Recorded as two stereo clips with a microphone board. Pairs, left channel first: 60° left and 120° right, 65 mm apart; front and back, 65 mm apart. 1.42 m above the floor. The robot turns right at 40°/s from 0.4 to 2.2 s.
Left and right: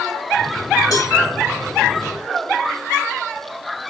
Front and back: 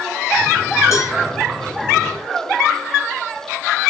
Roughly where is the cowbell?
Ahead left.